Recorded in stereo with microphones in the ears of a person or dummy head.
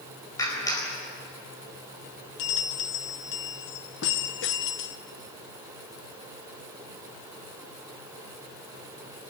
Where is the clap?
20° left (ahead or behind), 4.5 m.